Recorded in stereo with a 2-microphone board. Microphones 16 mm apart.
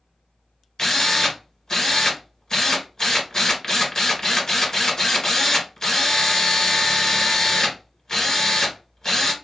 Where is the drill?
50° left (ahead or behind), 1.8 m.